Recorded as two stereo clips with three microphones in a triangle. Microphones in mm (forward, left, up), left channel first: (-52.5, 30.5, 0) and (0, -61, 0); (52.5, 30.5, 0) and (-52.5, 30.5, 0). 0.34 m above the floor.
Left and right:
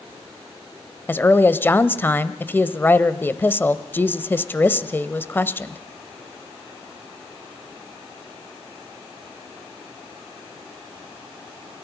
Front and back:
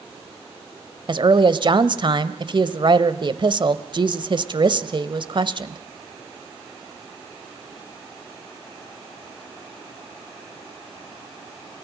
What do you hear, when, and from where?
1.1 s a woman speaking: 175° right, 1.2 m